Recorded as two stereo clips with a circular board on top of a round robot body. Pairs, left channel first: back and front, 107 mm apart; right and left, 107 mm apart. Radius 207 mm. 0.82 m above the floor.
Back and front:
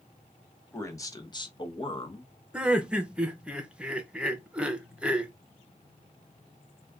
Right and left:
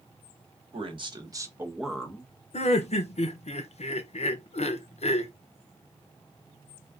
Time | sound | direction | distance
0.7 | a man speaking | 115° left | 1.4 m
2.5 | laughter | 80° right | 0.8 m